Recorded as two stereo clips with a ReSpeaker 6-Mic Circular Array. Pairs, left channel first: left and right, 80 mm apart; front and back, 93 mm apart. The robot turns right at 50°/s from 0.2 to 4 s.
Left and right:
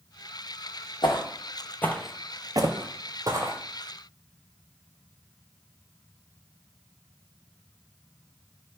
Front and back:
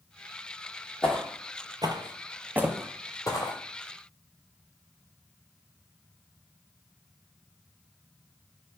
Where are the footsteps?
80° left, 0.8 m; by 3.6 s 30° right, 1.0 m.